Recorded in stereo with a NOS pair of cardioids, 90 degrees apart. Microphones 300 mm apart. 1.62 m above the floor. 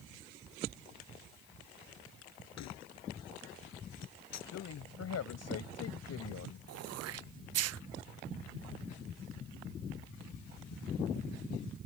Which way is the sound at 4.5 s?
60° left.